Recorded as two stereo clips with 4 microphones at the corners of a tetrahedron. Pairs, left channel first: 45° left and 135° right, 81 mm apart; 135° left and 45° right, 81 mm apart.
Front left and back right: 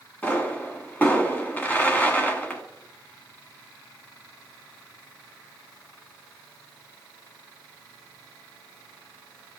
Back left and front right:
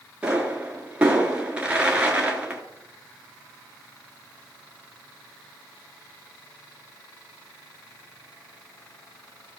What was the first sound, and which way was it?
A pop, 5° left.